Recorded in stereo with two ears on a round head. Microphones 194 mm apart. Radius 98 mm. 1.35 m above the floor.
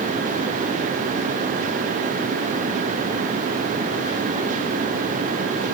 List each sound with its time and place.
Only background noise.